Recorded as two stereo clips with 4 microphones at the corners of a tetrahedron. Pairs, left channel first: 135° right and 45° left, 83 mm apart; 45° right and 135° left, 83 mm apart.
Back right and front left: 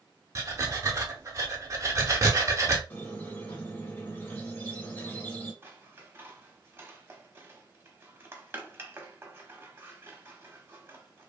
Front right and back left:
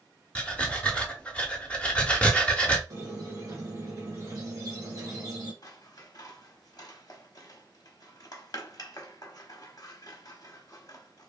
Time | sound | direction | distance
0.3 | breathing | 25° left | 0.7 m
2.9 | a squeak | 165° left | 1.3 m
5.6 | scissors | 10° right | 0.8 m